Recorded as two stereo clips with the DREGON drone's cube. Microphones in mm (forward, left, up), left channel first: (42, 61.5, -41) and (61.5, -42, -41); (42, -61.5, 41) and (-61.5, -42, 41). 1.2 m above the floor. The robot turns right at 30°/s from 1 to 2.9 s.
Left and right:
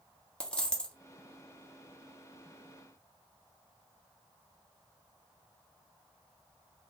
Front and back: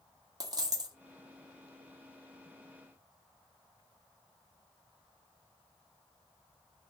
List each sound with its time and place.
0.4 s a dropped coin: 175° left, 0.6 m